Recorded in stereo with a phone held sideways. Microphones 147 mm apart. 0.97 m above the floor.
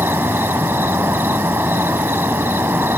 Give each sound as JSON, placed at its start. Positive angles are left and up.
{"t": 0.0, "sound": "an insect", "side_deg": -15}